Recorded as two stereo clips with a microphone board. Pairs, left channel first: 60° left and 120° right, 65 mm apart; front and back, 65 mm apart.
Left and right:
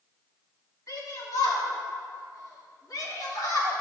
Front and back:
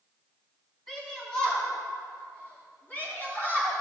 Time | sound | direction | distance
0.9 | a shout | 85° left | 3.5 m